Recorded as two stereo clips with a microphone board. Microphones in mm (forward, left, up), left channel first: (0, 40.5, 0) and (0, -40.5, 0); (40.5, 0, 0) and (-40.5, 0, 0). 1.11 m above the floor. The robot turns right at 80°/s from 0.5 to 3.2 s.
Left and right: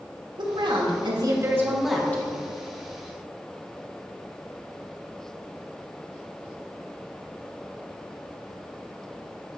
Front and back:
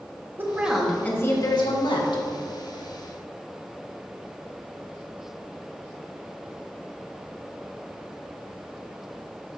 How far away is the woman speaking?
About 1.5 m.